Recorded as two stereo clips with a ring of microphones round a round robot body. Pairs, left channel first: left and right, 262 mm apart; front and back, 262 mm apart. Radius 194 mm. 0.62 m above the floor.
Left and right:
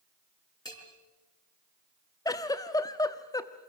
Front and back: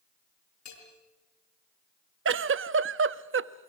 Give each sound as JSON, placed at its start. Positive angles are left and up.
{"t": 0.7, "sound": "a bell", "azimuth_deg": 15, "distance_m": 7.5}
{"t": 2.2, "sound": "a giggle", "azimuth_deg": 165, "distance_m": 0.8}